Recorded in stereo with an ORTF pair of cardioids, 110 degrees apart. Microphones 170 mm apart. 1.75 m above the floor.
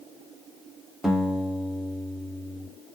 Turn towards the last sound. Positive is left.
turn(degrees=0)